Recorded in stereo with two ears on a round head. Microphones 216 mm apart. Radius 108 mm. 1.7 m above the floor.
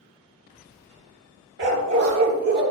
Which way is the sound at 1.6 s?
50° right (ahead or behind).